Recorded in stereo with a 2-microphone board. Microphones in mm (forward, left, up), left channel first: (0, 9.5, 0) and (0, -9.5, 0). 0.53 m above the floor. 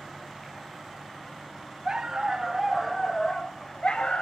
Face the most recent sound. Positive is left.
turn(degrees=75)  # may be behind; listen again after turning